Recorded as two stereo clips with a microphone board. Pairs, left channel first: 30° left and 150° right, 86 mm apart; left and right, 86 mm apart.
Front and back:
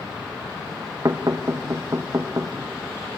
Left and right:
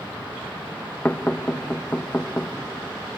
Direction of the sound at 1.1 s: 160° left.